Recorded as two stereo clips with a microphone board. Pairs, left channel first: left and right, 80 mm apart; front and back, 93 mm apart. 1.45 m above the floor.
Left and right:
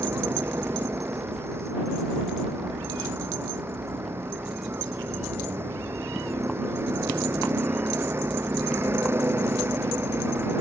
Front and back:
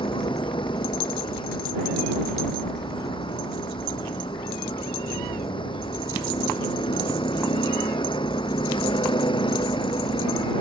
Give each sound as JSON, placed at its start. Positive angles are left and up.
{"t": 0.0, "sound": "a vehicle", "azimuth_deg": -30}